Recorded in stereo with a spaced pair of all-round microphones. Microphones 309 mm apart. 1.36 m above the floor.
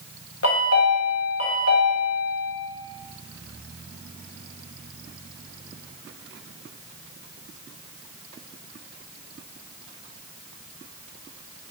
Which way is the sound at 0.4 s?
50° left (ahead or behind).